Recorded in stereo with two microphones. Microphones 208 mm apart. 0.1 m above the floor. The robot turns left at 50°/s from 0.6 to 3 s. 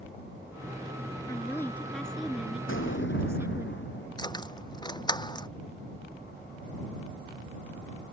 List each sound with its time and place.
1.3 s a woman speaking: 15° left (ahead or behind); by 3.7 s 10° right (ahead or behind)
2.7 s an explosion: 75° left (ahead or behind); by 4.1 s 65° left (ahead or behind)
4.2 s keys jangling: 20° left (ahead or behind)